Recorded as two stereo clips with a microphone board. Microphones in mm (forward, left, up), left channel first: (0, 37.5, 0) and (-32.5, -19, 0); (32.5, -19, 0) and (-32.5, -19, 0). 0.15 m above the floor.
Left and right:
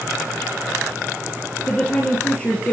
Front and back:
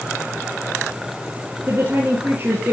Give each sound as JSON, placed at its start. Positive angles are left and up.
{"t": 1.7, "sound": "a woman speaking", "azimuth_deg": 130, "distance_m": 3.5}